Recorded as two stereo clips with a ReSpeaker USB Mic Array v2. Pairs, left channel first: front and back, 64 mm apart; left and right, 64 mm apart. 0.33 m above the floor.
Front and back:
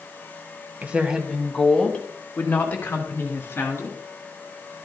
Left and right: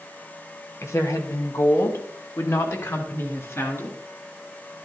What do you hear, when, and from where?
0.8 s a woman speaking: 120° left, 1.5 m; by 4.0 s 50° left, 4 m